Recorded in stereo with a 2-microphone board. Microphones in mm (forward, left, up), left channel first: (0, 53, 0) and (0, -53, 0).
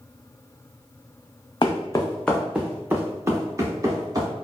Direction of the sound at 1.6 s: 50° left (ahead or behind).